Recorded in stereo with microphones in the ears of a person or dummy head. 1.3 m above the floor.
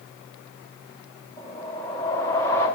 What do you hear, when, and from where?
1.4 s a whoosh: 15° left (ahead or behind), 1.5 m